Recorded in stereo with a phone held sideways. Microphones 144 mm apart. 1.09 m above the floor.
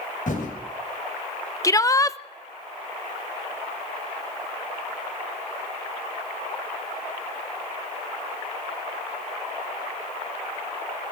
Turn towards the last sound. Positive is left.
turn(degrees=25)  # may be behind; listen again after turning